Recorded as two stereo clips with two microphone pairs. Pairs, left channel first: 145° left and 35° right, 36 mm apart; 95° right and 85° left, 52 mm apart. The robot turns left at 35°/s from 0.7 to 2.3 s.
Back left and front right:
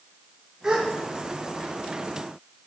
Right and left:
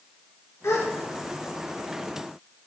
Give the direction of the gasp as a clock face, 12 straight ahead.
3 o'clock.